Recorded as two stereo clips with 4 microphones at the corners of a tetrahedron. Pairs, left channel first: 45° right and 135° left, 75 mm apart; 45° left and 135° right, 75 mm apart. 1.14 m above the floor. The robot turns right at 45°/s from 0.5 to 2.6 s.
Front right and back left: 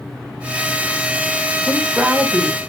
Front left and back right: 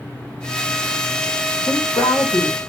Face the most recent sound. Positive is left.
turn(degrees=95)